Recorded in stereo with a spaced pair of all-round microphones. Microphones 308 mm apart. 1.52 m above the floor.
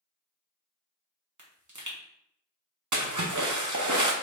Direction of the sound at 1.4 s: 70° right (ahead or behind).